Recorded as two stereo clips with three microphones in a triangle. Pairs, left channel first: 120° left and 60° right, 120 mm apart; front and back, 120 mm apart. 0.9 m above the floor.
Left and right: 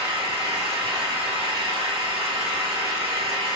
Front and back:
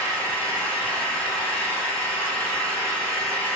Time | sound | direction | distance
0.0 | an engine running | 75° right | 0.9 m